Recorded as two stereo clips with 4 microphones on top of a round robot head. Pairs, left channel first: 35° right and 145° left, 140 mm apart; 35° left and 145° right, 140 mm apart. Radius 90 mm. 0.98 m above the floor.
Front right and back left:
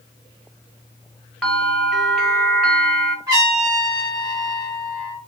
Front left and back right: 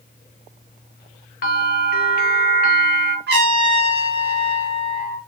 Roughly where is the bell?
Ahead left.